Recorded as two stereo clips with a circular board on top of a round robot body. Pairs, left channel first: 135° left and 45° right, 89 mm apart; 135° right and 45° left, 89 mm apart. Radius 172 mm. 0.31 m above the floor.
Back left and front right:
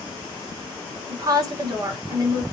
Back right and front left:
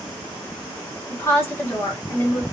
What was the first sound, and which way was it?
A woman speaking, 80° right.